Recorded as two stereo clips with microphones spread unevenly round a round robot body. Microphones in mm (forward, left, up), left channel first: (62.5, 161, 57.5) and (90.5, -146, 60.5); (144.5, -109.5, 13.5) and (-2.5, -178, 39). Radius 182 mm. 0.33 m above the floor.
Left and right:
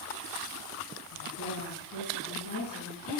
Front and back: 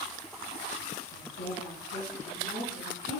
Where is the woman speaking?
55° left, 3.5 m.